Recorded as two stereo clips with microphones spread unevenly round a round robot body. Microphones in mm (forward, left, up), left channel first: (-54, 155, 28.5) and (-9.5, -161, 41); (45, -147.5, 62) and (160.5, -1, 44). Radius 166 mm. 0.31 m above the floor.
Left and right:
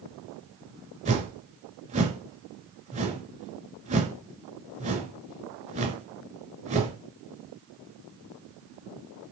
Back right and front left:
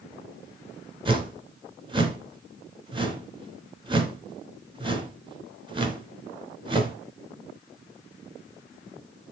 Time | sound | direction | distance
1.1 | a whoosh | 10° right | 2.5 m